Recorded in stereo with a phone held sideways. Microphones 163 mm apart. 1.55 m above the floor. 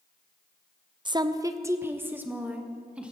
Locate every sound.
1.1 s a woman speaking: 30° right (ahead or behind), 0.5 m; by 3.1 s 5° right (ahead or behind), 1.7 m